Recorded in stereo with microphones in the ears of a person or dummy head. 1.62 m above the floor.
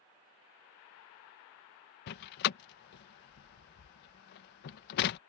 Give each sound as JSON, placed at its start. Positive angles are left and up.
{"t": 2.1, "sound": "a door slam", "side_deg": 55}